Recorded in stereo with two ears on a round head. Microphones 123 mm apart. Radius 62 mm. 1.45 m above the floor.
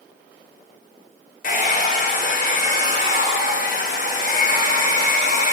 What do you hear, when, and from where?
1.4 s a hair dryer: 60° left (ahead or behind), 1.2 m